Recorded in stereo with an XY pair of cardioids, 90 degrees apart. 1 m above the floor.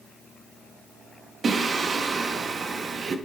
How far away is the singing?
About 0.8 m.